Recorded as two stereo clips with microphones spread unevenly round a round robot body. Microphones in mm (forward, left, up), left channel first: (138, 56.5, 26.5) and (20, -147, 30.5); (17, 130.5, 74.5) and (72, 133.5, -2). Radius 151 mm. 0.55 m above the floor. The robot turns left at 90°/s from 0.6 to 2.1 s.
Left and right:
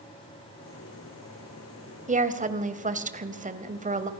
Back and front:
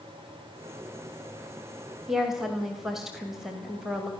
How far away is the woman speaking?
About 2.5 m.